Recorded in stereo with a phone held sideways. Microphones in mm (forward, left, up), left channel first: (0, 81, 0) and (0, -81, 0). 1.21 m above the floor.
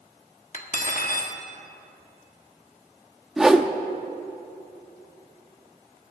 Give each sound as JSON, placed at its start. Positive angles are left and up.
{"t": 0.5, "sound": "cutlery clinking", "side_deg": 50, "distance_m": 1.1}
{"t": 3.4, "sound": "a whoosh", "side_deg": -5, "distance_m": 0.7}